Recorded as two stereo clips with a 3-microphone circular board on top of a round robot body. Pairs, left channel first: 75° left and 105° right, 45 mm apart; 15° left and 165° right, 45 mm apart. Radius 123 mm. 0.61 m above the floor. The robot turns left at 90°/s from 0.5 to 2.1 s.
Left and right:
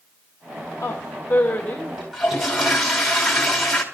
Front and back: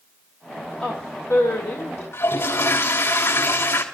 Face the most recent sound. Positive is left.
turn(degrees=-15)